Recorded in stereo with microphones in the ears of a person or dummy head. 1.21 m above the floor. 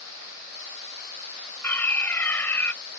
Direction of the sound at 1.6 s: 10° left (ahead or behind).